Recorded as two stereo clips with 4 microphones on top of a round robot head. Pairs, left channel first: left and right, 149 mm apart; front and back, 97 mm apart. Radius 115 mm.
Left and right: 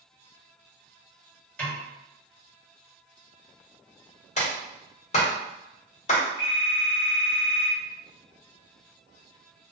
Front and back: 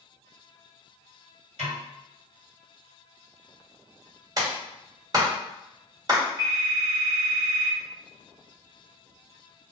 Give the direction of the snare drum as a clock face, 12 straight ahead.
6 o'clock.